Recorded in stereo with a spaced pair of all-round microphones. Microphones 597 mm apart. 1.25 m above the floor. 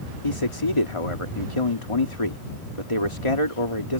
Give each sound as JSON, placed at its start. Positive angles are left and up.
{"t": 0.2, "sound": "a man speaking", "side_deg": 50}